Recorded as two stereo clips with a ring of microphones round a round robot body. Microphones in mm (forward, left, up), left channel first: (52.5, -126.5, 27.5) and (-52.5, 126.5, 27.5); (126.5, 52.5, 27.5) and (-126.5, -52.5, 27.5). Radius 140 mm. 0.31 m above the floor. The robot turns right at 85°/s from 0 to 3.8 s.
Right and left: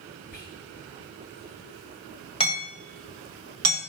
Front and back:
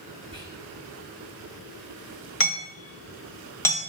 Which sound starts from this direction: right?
Whispering, at 0.3 s.